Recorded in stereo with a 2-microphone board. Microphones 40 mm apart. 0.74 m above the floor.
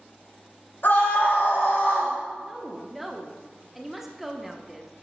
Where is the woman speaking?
5° right (ahead or behind), 0.9 m.